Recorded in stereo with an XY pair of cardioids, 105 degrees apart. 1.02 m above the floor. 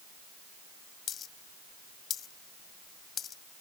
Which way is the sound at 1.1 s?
55° left.